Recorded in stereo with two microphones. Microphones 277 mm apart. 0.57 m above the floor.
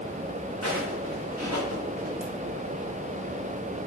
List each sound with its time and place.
0.6 s footsteps: 70° right (ahead or behind), 2.0 m; by 2.1 s 75° right (ahead or behind), 3.5 m
2.2 s a ringtone: 55° right (ahead or behind), 2 m